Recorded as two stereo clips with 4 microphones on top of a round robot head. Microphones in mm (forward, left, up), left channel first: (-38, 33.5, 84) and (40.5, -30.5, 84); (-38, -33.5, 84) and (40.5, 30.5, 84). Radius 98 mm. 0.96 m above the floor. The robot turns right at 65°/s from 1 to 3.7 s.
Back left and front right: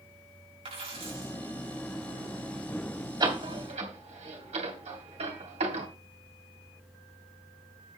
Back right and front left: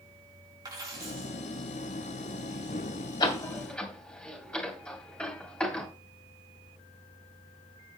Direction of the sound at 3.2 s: 95° right.